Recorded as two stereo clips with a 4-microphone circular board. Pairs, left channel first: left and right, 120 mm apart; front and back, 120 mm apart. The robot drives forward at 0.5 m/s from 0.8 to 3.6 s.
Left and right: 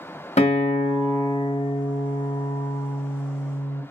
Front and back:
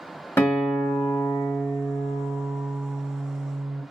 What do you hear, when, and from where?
0.4 s a guitar: 70° left, 1.1 m; by 3.8 s 135° left, 1.5 m